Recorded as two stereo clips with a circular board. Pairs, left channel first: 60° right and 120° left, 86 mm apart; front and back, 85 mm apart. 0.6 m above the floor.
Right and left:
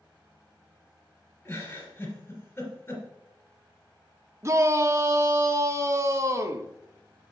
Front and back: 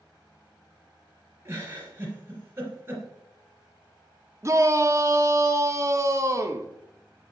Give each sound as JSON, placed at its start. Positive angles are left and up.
{"t": 1.4, "sound": "a giggle", "azimuth_deg": -125, "distance_m": 3.0}
{"t": 4.4, "sound": "a shout", "azimuth_deg": 155, "distance_m": 0.9}